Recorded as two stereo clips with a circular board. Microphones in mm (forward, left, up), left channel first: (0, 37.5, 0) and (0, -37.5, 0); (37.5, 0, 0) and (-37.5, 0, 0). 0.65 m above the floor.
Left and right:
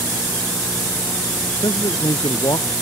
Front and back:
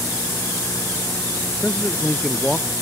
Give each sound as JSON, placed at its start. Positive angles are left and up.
{"t": 1.6, "sound": "a man speaking", "azimuth_deg": 80}